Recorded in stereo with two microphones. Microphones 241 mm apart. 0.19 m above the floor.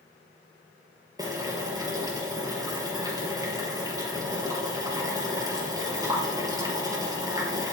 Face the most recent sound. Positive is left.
turn(degrees=-15)  # may be behind; listen again after turning